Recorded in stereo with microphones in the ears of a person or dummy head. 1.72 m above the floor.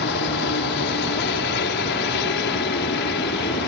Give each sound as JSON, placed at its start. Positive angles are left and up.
{"t": 0.0, "sound": "a helicopter", "side_deg": 60}